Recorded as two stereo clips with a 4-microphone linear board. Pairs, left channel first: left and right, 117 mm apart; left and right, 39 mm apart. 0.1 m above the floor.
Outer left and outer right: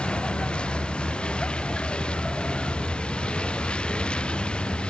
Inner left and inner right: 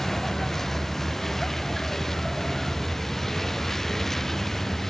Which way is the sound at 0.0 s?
10° left (ahead or behind).